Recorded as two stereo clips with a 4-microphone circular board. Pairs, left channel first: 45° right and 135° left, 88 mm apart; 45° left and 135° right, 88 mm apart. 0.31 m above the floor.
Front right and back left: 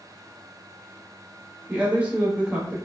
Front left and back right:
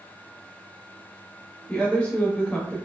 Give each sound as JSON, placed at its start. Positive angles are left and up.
{"t": 1.7, "sound": "a woman speaking", "azimuth_deg": 95, "distance_m": 0.8}